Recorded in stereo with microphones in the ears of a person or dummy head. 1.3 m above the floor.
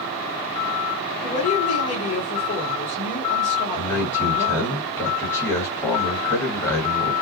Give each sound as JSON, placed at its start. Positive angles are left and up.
{"t": 1.2, "sound": "a woman speaking", "side_deg": 40, "distance_m": 2.0}
{"t": 3.8, "sound": "a man speaking", "side_deg": 15, "distance_m": 2.5}